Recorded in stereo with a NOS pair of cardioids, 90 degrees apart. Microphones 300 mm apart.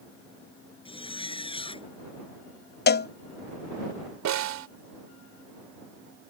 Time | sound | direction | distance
0.8 | a zipper | 20° left | ?
2.9 | a cowbell | 35° left | ?
4.2 | a snare drum | 70° right | ?